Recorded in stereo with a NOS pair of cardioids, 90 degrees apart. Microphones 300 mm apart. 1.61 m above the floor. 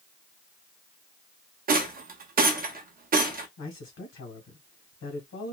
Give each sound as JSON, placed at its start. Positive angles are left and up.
{"t": 1.7, "sound": "a rattle", "azimuth_deg": -30, "distance_m": 0.7}
{"t": 3.6, "sound": "a man speaking", "azimuth_deg": 65, "distance_m": 1.7}